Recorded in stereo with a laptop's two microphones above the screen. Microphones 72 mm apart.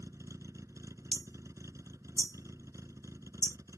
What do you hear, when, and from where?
0.0 s a vehicle: 45° right (ahead or behind)
1.1 s hammering: 65° left (ahead or behind)